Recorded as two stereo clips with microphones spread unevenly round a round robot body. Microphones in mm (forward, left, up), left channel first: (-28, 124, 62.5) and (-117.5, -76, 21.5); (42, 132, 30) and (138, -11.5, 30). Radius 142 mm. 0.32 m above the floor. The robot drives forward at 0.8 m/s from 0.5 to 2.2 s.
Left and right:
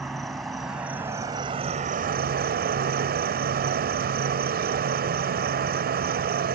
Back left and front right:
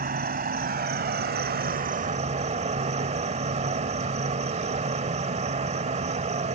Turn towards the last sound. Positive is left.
turn(degrees=-100)